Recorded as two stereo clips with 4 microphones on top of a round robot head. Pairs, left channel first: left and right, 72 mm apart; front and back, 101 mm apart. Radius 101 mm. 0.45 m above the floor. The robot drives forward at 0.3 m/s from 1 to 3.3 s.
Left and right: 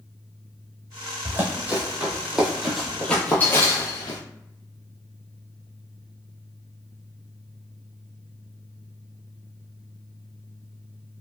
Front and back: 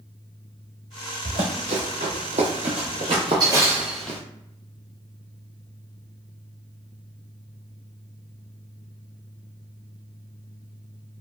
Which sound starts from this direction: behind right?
Running footsteps, at 1.2 s.